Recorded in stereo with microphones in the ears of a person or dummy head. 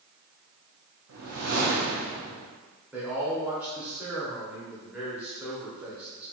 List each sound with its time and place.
1.1 s a whoosh: 80° right, 0.6 m
2.9 s a man speaking: 20° right (ahead or behind), 0.6 m